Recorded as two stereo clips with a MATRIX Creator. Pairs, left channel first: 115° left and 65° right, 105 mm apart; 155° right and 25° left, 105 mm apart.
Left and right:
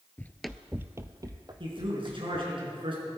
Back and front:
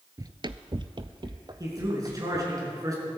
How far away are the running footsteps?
About 0.6 m.